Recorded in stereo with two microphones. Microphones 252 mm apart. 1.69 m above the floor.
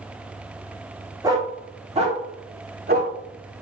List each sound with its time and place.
1.2 s a dog barking: 15° right (ahead or behind), 1.7 m; by 3.1 s 40° right (ahead or behind), 1.6 m